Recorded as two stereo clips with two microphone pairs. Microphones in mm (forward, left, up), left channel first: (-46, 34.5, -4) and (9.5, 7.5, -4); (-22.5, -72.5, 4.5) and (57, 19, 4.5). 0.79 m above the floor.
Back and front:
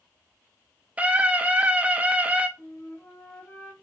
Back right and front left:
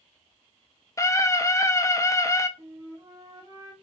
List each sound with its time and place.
1.0 s a scream: 80° right, 1.2 m
2.6 s a flute: 110° left, 2.5 m